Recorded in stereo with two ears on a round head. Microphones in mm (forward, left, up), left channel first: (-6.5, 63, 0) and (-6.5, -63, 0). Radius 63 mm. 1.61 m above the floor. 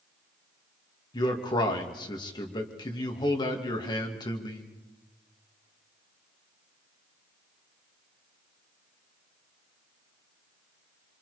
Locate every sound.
1.1 s a man speaking: 35° left (ahead or behind), 2.5 m